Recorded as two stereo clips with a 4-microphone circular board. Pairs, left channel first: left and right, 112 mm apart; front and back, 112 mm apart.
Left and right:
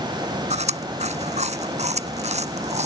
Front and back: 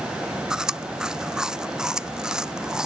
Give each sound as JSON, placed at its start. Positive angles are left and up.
{"t": 0.5, "sound": "chewing", "azimuth_deg": -95}